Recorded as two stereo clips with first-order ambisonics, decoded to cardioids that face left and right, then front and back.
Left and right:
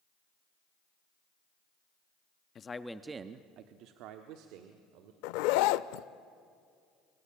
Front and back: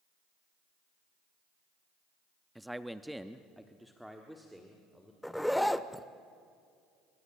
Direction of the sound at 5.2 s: 90° left.